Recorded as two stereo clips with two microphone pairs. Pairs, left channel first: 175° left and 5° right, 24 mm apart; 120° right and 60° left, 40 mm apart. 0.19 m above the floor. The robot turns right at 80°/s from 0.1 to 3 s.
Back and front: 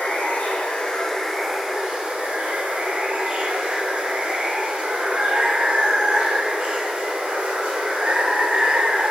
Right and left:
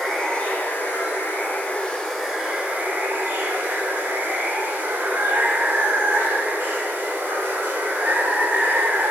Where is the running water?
155° left, 1.1 m; by 9.1 s 25° left, 1.1 m.